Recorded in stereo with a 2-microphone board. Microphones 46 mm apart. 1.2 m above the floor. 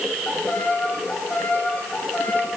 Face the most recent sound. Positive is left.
turn(degrees=35)  # may be behind; listen again after turning